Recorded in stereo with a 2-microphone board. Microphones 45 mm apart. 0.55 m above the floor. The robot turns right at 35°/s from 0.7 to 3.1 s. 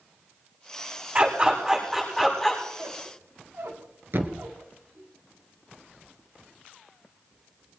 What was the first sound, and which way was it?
A dog barking, 40° right (ahead or behind).